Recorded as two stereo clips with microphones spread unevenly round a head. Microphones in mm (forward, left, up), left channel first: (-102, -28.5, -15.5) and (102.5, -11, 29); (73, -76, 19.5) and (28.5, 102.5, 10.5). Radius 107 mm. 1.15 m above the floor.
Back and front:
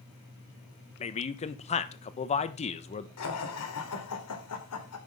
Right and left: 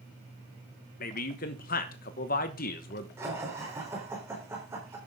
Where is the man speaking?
125° right, 1.1 m.